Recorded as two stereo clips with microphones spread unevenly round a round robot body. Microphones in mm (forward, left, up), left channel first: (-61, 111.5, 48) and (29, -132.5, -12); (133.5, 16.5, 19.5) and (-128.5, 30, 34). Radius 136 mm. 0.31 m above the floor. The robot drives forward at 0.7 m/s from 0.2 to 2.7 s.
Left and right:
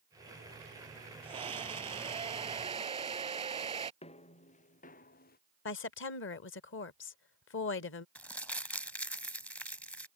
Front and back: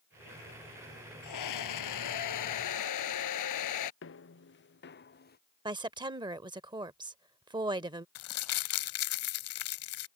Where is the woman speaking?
115° left.